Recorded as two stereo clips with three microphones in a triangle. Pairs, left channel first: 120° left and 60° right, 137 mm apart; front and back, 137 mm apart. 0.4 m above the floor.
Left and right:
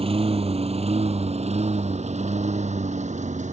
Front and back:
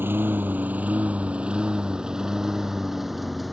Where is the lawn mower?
105° right; by 3.5 s 90° right.